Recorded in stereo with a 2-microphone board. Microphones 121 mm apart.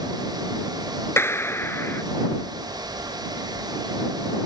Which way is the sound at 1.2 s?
20° left (ahead or behind).